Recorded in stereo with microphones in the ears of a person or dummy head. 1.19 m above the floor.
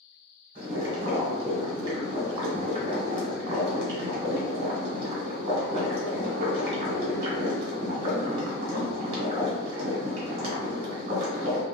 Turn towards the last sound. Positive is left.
turn(degrees=-40)  # may be behind; listen again after turning